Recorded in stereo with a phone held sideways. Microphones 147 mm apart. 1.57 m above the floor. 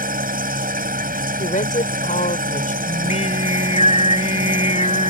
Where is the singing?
50° left (ahead or behind).